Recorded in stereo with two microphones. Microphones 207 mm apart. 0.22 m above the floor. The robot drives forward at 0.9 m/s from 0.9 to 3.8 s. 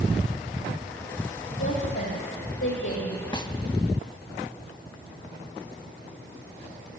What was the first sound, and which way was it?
A woman speaking, 75° left (ahead or behind).